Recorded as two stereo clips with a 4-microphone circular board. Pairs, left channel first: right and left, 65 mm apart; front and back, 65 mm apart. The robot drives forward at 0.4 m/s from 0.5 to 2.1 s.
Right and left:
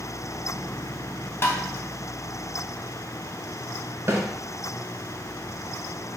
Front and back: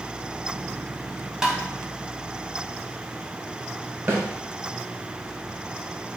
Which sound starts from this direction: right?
Tapping, at 1.4 s.